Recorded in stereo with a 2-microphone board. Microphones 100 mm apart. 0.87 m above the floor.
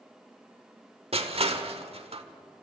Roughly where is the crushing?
Right.